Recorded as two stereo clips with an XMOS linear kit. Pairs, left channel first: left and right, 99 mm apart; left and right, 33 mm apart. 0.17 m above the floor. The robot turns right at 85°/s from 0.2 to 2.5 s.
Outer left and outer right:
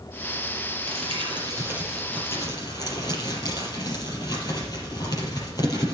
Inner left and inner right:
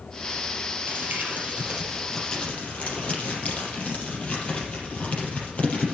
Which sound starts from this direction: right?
Crumpling, at 0.9 s.